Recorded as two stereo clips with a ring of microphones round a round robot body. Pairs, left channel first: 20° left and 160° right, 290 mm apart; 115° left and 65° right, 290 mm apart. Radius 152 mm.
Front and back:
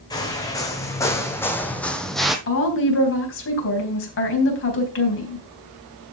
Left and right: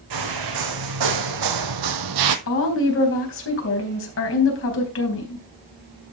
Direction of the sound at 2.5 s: 70° left.